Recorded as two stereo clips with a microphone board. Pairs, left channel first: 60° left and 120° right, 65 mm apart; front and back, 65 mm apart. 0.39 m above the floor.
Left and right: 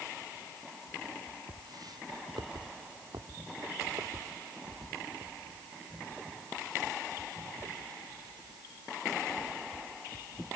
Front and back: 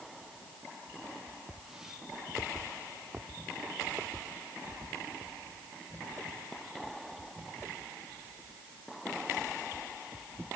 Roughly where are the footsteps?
Right.